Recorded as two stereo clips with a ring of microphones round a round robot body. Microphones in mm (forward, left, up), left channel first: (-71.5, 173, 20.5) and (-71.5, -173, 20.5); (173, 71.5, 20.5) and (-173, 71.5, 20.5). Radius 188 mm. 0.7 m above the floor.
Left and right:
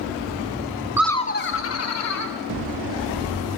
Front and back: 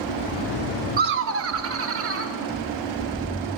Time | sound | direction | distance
1.0 | laughter | 165° right | 0.6 m